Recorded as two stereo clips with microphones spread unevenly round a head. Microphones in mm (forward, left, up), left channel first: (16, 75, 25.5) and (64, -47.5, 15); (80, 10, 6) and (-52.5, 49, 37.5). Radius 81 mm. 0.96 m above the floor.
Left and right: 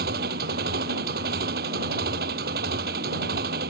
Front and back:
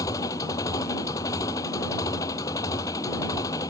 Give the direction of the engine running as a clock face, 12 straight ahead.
3 o'clock.